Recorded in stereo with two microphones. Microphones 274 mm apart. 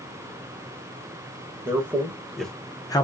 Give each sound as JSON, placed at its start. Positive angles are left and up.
{"t": 1.6, "sound": "a man speaking", "side_deg": -10, "distance_m": 1.1}